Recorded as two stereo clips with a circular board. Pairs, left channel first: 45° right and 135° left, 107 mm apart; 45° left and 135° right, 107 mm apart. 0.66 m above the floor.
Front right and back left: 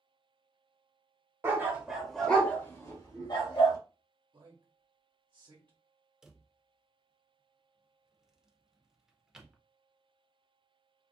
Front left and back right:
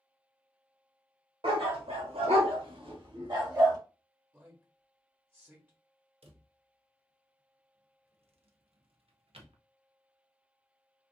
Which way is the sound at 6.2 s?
140° right.